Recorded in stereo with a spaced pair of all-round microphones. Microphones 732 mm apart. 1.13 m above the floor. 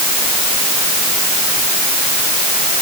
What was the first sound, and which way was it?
Only background noise.